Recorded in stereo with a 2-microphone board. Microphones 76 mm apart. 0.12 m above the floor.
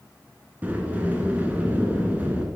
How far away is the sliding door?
About 1.7 m.